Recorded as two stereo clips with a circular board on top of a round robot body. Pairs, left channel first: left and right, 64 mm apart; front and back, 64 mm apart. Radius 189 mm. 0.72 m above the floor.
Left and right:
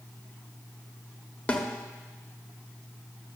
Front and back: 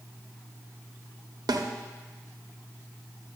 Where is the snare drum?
160° left, 1.2 m.